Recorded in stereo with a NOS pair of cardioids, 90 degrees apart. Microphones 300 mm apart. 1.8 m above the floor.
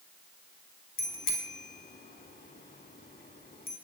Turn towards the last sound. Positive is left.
turn(degrees=30)